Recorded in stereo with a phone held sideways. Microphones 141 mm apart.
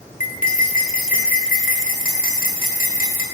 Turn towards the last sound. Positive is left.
turn(degrees=70)  # may be behind; listen again after turning